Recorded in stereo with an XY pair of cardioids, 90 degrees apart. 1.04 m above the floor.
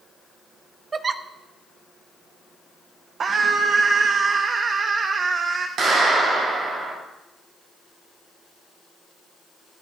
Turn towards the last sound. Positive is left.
turn(degrees=-65)